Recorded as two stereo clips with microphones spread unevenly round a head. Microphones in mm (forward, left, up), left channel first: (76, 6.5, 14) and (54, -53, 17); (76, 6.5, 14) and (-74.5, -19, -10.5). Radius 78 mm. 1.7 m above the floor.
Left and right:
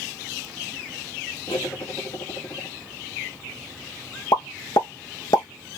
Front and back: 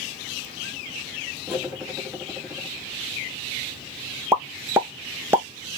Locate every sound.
1.5 s cutlery clinking: 95° left, 1.6 m
4.3 s a pop: 110° left, 0.9 m